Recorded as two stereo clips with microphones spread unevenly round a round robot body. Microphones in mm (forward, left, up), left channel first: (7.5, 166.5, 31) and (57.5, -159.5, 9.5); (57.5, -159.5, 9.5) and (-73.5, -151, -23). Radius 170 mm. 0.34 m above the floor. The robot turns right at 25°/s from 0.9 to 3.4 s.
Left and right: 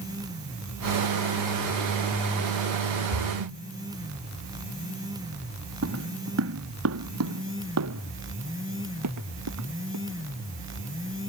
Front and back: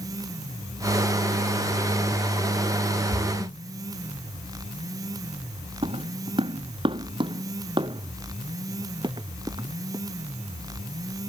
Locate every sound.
3.1 s a splash: 75° right; by 3.6 s 65° right
5.8 s footsteps: 135° right; by 10.0 s 125° right